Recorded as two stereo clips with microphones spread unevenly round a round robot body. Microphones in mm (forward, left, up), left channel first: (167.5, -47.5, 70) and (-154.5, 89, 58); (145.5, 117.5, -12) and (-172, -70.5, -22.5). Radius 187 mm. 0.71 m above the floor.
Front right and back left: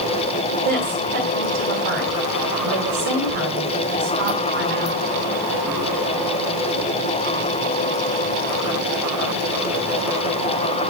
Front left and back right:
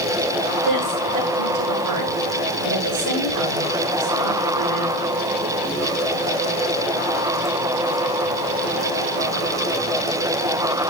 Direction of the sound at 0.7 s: 170° left.